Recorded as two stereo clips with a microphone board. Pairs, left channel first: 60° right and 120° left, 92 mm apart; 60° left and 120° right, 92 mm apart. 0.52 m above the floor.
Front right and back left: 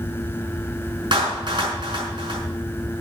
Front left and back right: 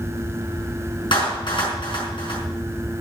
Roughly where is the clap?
Left.